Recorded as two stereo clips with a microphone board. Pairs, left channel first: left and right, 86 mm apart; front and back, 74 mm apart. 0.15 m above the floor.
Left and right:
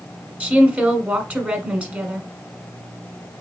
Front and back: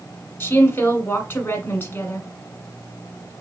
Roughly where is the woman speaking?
Ahead right.